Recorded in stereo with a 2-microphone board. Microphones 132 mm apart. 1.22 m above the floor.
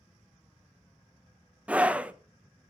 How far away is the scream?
About 0.8 m.